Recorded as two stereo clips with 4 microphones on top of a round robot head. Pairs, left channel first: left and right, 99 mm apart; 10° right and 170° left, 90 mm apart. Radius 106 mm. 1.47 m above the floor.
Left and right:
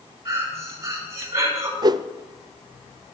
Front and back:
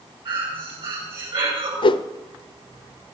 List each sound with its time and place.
0.2 s breathing: 150° right, 6 m
1.8 s a whoosh: 40° right, 0.6 m